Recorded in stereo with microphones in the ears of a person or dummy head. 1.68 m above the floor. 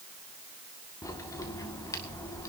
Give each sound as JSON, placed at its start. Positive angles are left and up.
{"t": 1.0, "sound": "a crack", "side_deg": 15, "distance_m": 1.9}